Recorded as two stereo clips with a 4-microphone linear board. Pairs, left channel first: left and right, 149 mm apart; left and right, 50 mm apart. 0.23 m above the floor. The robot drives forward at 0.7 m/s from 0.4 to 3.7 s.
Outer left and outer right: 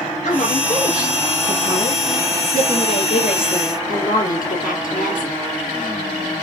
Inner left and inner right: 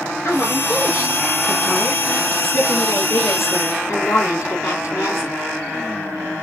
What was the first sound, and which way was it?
A woman speaking, 55° left (ahead or behind).